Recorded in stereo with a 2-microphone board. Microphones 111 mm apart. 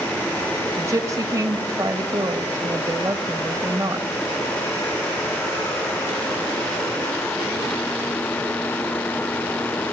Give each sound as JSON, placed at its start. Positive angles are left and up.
{"t": 0.8, "sound": "a woman speaking", "side_deg": -30, "distance_m": 1.6}